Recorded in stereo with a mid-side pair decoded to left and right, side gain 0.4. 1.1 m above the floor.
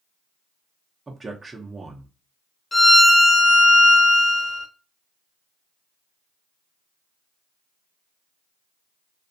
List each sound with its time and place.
1.1 s a man speaking: 25° right, 0.6 m
2.7 s a violin: 20° left, 1.1 m